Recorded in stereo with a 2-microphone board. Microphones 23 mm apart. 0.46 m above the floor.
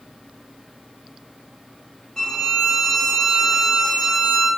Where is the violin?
25° left (ahead or behind), 0.6 m.